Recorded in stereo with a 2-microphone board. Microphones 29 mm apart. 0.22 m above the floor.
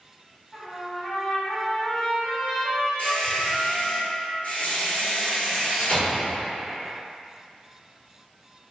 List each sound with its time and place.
0.5 s a trumpet: 35° left (ahead or behind), 1.9 m
3.0 s a squeak: 60° left (ahead or behind), 1.8 m